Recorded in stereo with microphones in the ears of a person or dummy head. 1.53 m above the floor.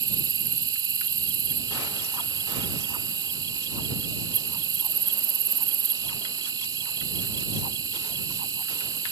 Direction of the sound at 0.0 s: 20° right (ahead or behind).